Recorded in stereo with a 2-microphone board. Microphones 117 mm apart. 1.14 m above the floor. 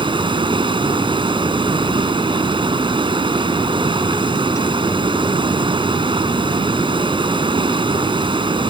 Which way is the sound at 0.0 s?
45° right (ahead or behind).